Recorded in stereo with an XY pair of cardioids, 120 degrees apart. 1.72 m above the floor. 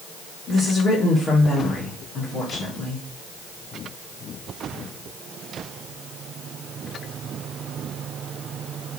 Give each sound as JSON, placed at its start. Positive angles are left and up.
{"t": 0.5, "sound": "a woman speaking", "azimuth_deg": 45, "distance_m": 2.0}